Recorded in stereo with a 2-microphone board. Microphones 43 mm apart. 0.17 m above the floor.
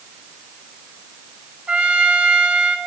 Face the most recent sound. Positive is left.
turn(degrees=-25)  # may be behind; listen again after turning